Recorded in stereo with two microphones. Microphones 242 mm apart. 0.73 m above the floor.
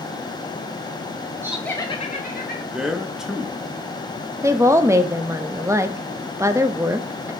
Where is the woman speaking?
10° right (ahead or behind), 0.5 m.